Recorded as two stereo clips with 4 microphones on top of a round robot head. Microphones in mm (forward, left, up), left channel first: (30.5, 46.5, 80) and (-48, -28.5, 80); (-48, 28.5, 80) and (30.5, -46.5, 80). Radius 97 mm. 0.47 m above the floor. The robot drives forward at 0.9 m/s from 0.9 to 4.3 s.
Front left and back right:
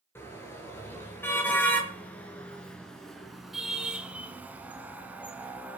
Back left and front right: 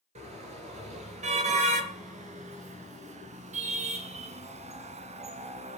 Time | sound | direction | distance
0.1 | a car horn | 25° right | 5 m